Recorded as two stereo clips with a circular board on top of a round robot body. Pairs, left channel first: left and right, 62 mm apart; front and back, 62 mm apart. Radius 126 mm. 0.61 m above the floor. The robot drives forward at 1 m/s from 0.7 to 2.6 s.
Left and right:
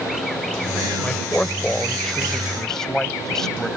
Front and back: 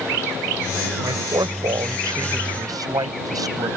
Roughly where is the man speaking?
Behind.